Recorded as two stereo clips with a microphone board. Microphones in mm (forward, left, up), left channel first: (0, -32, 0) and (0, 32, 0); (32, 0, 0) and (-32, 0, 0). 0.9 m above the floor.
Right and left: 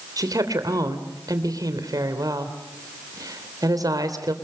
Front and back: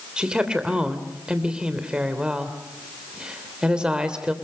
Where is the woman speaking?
105° left, 3 m.